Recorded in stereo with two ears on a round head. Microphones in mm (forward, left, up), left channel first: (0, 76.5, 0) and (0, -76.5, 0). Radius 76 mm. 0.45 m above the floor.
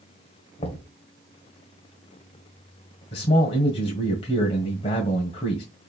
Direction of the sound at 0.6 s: 35° left (ahead or behind).